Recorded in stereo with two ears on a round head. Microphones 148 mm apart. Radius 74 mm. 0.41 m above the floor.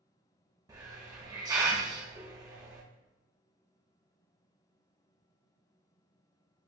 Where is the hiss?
25° right (ahead or behind), 0.8 m.